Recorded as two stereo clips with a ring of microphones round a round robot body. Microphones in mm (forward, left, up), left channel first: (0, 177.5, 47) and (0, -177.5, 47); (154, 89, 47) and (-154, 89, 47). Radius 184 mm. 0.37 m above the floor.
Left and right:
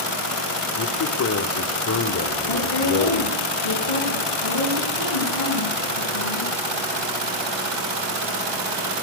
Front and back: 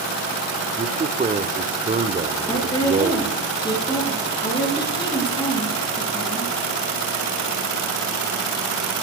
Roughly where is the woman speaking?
Left.